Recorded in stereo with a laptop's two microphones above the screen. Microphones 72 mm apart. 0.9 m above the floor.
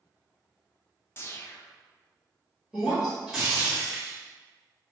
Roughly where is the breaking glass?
Centre.